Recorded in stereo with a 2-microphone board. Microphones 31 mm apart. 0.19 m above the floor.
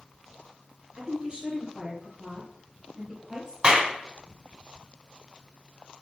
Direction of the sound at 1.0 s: 30° right (ahead or behind).